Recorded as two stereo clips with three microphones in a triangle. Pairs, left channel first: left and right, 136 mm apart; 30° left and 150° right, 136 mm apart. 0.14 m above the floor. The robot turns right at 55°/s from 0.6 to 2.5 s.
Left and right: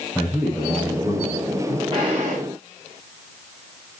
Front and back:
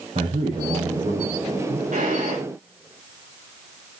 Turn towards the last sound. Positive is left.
turn(degrees=-110)